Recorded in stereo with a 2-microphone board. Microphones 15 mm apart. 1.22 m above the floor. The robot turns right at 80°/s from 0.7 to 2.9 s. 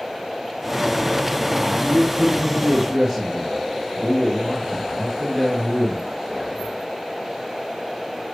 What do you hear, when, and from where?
1.6 s a man speaking: 135° right, 10 m; by 6.8 s 30° right, 10 m